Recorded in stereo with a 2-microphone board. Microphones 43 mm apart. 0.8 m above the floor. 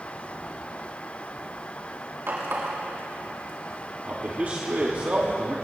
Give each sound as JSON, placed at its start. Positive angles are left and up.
{"t": 2.3, "sound": "a running tap", "side_deg": -70, "distance_m": 4.5}
{"t": 4.0, "sound": "a man speaking", "side_deg": -40, "distance_m": 1.8}